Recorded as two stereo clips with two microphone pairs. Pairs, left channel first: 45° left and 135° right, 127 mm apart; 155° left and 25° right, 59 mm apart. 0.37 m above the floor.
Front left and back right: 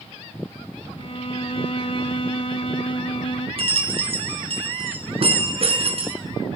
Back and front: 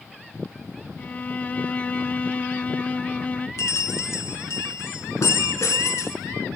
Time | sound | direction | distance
1.0 | a violin | 90° left | 0.8 m
3.6 | a bell | 170° right | 3.5 m